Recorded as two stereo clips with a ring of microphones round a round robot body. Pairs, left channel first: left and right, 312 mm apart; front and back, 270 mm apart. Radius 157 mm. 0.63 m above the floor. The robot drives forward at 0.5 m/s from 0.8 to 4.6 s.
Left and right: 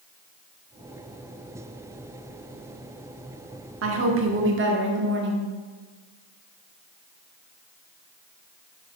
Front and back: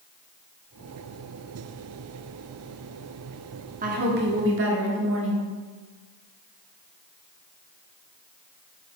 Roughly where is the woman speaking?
Behind right.